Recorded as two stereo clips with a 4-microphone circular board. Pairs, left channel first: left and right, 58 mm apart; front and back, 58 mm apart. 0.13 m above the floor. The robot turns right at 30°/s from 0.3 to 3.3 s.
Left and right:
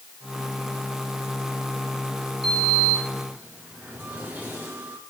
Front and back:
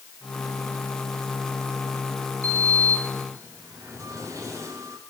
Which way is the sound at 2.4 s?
Straight behind.